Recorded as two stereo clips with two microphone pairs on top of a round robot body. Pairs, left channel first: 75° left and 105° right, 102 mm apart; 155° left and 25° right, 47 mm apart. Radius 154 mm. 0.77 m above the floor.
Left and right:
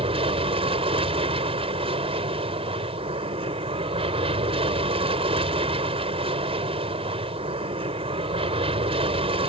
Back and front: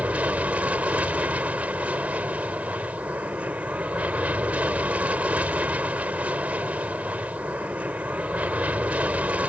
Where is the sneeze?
No sneeze in this recording.